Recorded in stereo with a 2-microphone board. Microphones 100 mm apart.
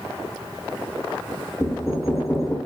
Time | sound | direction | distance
1.6 | knocking | 20° left (ahead or behind) | 0.9 m